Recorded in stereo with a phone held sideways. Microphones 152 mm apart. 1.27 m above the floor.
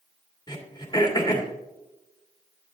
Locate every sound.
0.5 s throat clearing: 30° left (ahead or behind), 1.9 m